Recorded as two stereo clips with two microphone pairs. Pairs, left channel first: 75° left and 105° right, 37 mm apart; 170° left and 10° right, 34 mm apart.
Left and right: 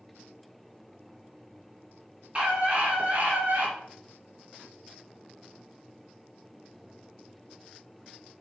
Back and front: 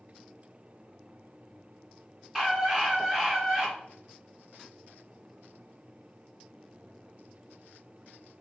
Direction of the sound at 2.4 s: 100° right.